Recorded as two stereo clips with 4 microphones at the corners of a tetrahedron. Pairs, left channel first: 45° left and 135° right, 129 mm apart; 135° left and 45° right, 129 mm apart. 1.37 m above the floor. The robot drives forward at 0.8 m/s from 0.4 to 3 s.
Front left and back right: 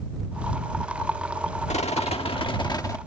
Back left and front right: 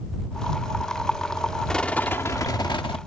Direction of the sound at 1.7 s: 50° left.